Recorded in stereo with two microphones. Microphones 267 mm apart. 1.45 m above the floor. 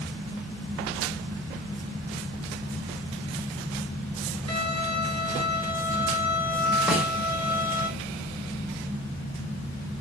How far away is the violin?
About 4.5 m.